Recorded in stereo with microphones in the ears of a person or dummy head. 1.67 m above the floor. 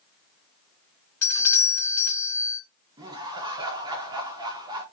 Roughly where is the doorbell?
Centre.